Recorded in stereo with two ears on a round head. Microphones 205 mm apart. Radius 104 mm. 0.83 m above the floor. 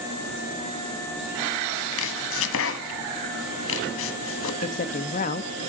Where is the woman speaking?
35° left (ahead or behind), 0.7 m.